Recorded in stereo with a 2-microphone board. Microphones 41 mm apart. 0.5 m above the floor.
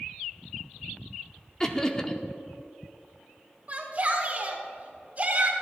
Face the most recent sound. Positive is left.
turn(degrees=-40)  # may be behind; listen again after turning